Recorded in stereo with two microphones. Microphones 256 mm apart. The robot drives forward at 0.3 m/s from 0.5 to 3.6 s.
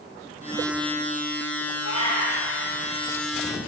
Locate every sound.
1.8 s a cat meowing: 70° left (ahead or behind), 4 m